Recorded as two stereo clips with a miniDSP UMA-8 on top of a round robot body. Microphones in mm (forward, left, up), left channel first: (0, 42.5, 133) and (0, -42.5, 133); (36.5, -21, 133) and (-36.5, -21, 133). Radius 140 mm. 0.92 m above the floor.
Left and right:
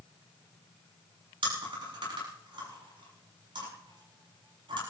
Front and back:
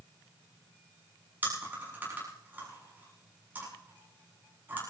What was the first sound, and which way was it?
Chewing, 115° right.